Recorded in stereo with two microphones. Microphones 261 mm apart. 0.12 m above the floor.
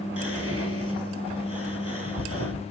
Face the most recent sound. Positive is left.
turn(degrees=-60)  # may be behind; listen again after turning